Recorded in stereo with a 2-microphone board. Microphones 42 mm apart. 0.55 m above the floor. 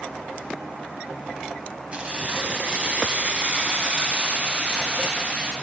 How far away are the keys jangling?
About 2 m.